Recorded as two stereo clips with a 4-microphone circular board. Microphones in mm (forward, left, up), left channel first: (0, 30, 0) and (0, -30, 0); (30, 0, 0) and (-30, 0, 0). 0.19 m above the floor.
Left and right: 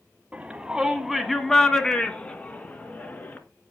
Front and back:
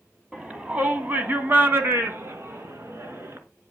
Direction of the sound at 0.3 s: 120° right.